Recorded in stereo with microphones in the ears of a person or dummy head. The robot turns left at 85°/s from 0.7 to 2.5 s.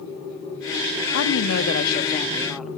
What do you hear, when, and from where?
1.1 s a woman speaking: 115° left, 2.5 m; by 2.7 s straight ahead, 2.5 m